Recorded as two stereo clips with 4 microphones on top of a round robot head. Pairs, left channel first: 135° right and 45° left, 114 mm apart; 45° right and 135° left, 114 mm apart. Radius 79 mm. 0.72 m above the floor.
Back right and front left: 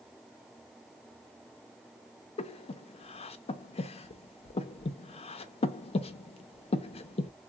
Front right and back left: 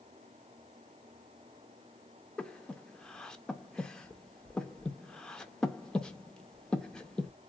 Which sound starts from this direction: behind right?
Breathing, at 2.4 s.